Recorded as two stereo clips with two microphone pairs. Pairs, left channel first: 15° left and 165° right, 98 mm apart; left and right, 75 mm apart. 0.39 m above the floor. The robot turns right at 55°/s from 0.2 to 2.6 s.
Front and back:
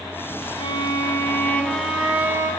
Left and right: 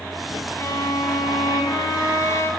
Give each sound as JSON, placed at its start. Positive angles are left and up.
{"t": 0.6, "sound": "a violin", "azimuth_deg": 35, "distance_m": 1.4}